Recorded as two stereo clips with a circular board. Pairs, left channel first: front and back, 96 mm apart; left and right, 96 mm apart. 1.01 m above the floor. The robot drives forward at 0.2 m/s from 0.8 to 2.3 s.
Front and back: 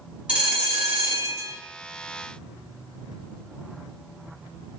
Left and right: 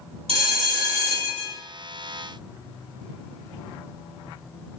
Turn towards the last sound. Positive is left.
turn(degrees=-120)